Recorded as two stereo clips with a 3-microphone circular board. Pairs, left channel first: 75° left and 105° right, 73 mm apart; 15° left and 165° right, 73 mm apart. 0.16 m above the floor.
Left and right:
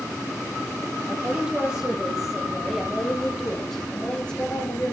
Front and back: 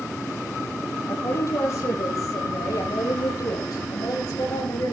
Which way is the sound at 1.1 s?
30° right.